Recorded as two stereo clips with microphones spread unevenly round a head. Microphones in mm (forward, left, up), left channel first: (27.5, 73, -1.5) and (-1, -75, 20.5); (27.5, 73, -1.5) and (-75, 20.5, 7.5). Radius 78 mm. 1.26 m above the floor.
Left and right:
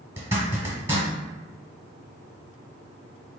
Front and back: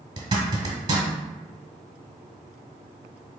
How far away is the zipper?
About 1.5 m.